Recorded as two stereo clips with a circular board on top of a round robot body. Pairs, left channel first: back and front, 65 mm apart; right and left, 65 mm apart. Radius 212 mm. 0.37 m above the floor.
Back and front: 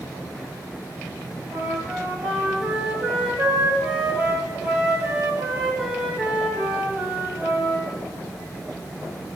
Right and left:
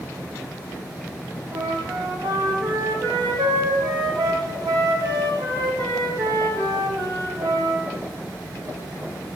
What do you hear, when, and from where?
1.5 s a flute: 75° left, 3 m